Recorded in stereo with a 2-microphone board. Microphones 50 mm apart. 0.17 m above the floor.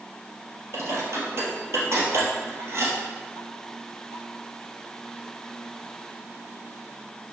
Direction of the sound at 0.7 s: 60° right (ahead or behind).